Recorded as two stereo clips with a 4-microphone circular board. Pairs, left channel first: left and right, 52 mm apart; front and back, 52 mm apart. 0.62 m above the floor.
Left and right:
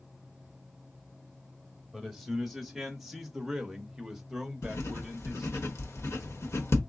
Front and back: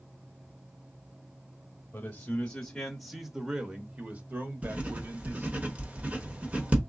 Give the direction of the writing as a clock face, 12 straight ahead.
8 o'clock.